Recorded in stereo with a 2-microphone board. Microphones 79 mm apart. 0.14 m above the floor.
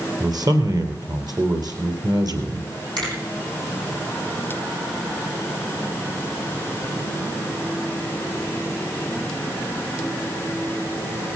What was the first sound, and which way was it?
A man speaking, 55° right (ahead or behind).